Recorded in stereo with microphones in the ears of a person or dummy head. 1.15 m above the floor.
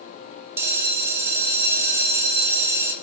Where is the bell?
15° right (ahead or behind), 0.5 m.